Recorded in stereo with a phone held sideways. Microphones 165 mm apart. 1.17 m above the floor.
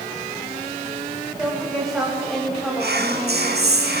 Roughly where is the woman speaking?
Centre.